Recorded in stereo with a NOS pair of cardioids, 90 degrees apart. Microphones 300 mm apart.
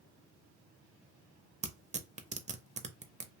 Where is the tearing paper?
25° right, 0.6 m.